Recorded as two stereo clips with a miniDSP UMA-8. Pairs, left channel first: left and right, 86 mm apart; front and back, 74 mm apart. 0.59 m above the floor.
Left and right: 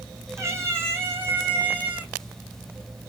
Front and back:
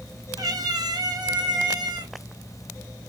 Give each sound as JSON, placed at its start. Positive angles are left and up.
{"t": 0.4, "sound": "a cat meowing", "azimuth_deg": -150, "distance_m": 3.0}